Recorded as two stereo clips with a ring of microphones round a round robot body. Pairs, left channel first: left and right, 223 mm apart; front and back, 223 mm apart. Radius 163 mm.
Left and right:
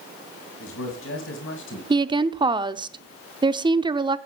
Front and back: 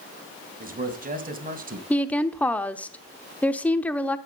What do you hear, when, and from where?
0.6 s a man speaking: 130° left, 3 m
1.9 s a woman speaking: 70° right, 0.8 m